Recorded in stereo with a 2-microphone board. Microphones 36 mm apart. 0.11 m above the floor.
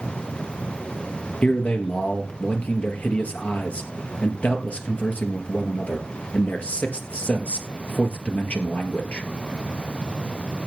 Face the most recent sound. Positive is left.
turn(degrees=45)  # may be behind; listen again after turning